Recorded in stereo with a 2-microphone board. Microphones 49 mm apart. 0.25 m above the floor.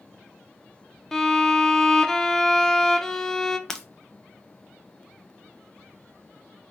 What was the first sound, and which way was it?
A violin, 10° left (ahead or behind).